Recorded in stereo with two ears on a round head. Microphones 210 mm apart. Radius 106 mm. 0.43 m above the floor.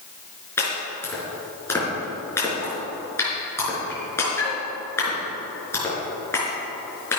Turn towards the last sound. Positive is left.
turn(degrees=10)  # may be behind; listen again after turning